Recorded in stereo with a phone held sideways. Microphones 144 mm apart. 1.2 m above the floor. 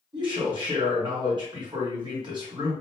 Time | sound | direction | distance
0.1 | a man speaking | 30° right (ahead or behind) | 1.6 m